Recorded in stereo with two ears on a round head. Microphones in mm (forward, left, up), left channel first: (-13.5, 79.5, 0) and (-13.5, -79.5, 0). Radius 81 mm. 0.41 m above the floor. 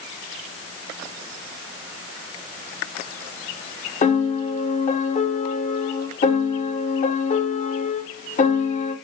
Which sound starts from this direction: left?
A piano, at 4.0 s.